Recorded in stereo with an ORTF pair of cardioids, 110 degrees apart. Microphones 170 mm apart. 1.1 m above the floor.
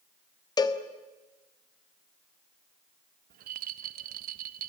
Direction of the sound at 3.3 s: 65° right.